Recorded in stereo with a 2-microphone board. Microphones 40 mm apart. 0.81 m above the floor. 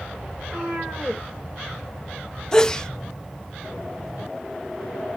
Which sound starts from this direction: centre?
A sneeze, at 2.5 s.